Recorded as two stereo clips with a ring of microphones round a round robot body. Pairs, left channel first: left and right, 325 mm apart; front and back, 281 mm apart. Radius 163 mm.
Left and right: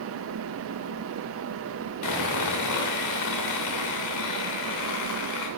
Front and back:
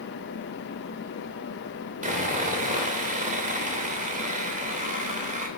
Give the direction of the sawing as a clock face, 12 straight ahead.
8 o'clock.